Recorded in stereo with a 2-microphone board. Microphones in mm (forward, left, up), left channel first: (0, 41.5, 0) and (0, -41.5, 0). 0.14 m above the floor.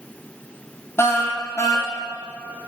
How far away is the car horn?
About 2.5 m.